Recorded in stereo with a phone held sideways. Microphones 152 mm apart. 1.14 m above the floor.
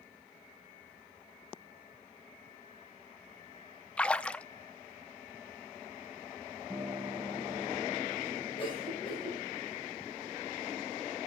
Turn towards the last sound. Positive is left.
turn(degrees=40)  # may be behind; listen again after turning